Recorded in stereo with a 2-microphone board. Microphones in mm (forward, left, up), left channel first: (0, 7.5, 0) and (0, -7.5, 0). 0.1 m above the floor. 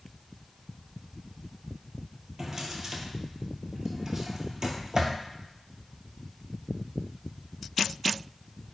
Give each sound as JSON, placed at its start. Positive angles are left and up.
{"t": 2.4, "sound": "a drawer", "side_deg": -35, "distance_m": 0.6}